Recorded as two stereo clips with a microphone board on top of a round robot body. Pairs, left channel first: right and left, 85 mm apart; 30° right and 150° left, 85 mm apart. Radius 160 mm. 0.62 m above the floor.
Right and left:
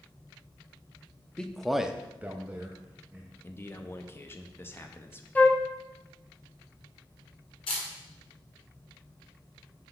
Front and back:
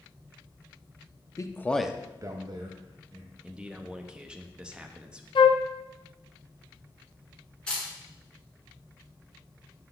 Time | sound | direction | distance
1.4 | a man speaking | 15° right | 0.8 m
3.4 | a man speaking | 135° right | 0.9 m
5.3 | a flute | 20° right | 0.7 m
7.7 | a camera shutter | 110° right | 1.3 m